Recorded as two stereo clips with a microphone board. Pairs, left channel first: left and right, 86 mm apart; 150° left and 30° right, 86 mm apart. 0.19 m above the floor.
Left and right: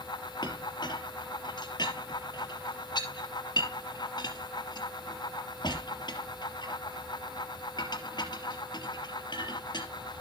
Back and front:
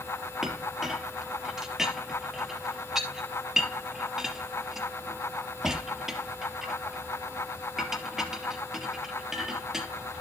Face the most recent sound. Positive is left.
turn(degrees=55)